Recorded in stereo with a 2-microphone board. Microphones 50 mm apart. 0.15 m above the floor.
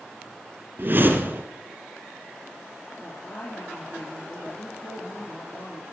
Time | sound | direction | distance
0.8 | a whoosh | 40° right (ahead or behind) | 2 m
3.0 | a woman speaking | 60° left (ahead or behind) | 3.5 m